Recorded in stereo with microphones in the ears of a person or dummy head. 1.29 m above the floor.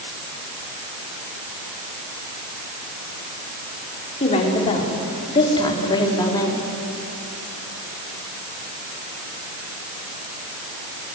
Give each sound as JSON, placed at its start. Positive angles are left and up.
{"t": 4.2, "sound": "a woman speaking", "side_deg": 35, "distance_m": 4.5}